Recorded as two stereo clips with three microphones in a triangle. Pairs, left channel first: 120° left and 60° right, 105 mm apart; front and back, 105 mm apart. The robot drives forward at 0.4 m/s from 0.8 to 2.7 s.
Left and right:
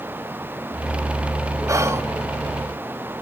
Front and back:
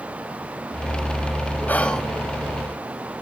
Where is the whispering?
55° right, 0.6 m; by 2.0 s 80° right, 0.6 m.